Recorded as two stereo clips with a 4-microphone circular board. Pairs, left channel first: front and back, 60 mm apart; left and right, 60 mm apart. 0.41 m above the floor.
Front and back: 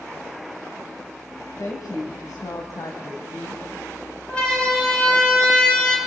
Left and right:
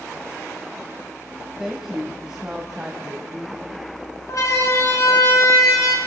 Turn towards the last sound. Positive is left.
turn(degrees=80)